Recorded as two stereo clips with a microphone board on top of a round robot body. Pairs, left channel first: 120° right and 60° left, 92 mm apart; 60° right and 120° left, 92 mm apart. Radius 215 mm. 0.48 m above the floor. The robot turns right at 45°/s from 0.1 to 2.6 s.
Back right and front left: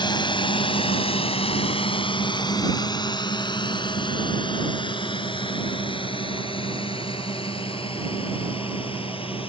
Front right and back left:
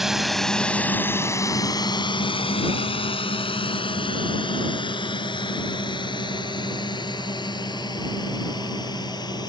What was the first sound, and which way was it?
A drone, 155° right.